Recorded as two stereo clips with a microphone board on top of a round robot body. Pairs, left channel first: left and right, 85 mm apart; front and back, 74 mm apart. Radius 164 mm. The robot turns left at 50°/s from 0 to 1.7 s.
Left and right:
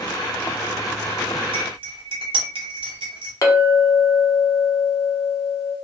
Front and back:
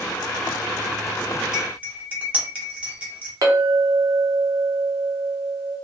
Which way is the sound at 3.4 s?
140° left.